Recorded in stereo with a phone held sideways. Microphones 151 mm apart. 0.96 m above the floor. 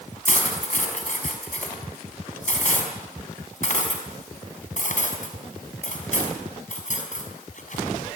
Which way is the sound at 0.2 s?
55° left (ahead or behind).